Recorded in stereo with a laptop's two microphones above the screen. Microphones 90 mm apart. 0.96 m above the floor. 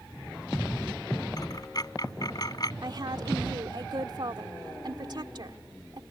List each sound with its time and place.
1.4 s a dropped coin: 45° left (ahead or behind)
2.8 s a woman speaking: 55° right (ahead or behind)